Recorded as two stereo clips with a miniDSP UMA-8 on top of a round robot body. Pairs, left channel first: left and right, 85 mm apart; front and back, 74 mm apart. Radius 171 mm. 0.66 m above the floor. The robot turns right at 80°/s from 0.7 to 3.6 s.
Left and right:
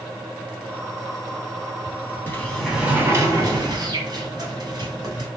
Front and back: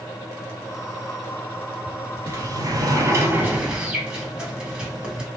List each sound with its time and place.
2.3 s a sliding door: 145° left, 1.4 m; by 5.3 s 110° right, 1.4 m